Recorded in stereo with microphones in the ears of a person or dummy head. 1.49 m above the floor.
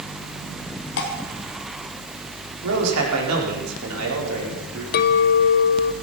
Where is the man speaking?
85° right, 5 m.